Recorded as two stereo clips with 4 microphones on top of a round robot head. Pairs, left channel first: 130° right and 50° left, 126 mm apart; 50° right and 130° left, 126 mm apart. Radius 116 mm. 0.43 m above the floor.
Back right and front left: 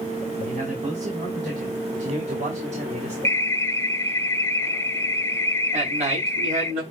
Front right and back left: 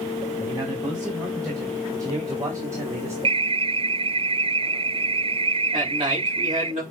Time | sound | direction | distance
0.4 | a man speaking | 70° left | 4 m
3.2 | an alarm | 165° left | 0.7 m
5.7 | a man speaking | 85° left | 6 m